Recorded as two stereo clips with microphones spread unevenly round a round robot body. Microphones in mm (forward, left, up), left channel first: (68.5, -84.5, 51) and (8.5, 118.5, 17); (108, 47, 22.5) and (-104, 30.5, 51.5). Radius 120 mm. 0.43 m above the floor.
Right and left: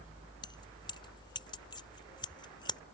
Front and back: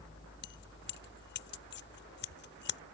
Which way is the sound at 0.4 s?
Straight ahead.